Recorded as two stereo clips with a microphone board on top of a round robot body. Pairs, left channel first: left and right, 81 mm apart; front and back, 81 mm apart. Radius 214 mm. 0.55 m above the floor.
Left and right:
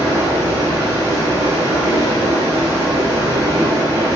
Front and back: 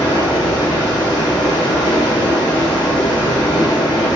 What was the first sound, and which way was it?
Running water, 30° right.